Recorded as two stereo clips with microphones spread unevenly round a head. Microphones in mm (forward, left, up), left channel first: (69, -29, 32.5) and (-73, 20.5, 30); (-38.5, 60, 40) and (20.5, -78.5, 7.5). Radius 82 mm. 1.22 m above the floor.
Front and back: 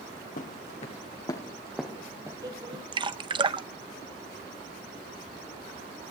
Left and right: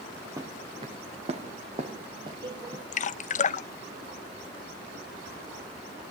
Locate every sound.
0.4 s footsteps: 5° left, 1.8 m; by 2.8 s 140° right, 2.5 m
2.9 s dripping: 130° left, 0.6 m